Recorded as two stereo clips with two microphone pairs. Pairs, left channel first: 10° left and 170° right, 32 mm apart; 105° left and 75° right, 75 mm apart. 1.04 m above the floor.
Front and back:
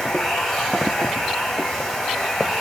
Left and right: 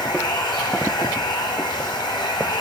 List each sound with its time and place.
0.0 s running water: 90° left, 4 m